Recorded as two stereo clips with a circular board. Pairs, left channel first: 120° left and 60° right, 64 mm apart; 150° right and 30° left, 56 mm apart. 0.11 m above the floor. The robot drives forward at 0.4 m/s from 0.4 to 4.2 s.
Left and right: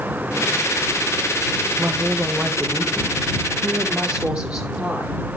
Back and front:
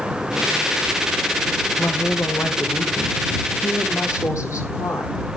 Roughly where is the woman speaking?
Behind right.